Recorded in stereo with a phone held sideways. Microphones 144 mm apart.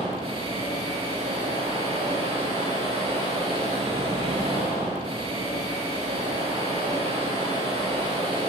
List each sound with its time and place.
0.0 s a machine running: 40° right (ahead or behind), 5 m